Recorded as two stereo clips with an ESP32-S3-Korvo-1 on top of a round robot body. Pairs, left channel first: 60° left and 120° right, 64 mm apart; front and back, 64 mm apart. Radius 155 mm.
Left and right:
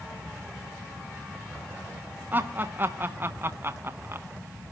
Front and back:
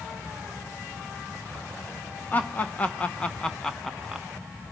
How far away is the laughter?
About 1.5 m.